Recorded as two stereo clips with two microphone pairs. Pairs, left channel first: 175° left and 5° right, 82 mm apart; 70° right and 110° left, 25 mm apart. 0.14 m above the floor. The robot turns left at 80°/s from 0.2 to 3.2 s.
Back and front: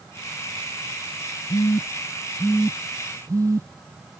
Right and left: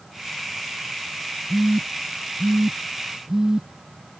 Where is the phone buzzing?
175° left; by 3.7 s 40° left.